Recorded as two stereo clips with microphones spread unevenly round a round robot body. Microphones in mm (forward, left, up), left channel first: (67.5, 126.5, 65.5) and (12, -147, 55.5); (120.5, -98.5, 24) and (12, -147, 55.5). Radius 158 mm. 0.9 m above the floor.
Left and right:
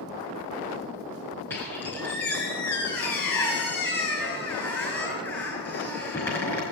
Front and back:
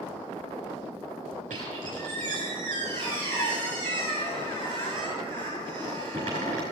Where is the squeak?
160° left, 5.5 m.